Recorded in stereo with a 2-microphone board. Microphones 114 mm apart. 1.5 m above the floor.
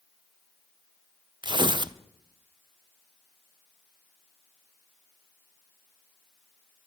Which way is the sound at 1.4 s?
45° right (ahead or behind).